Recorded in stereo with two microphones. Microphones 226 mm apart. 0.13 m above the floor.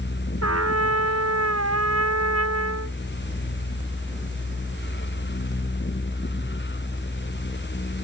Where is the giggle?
I don't hear a giggle.